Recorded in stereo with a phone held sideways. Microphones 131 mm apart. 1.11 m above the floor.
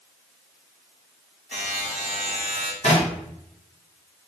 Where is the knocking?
60° left (ahead or behind), 1.4 m.